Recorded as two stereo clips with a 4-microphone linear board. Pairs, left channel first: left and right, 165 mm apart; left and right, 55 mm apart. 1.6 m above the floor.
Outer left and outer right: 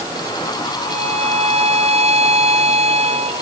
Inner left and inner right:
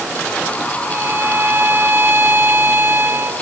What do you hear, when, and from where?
0.9 s a violin: 40° right (ahead or behind)